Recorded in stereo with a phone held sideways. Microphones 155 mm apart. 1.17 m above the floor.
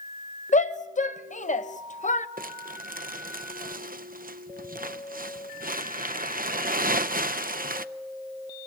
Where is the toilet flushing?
No toilet flushing in this recording.